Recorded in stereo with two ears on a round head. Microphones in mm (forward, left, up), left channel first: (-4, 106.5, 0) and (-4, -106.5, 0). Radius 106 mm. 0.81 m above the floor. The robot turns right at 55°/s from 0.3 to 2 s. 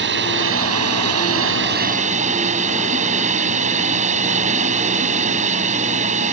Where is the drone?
125° right; by 6.3 s 35° right.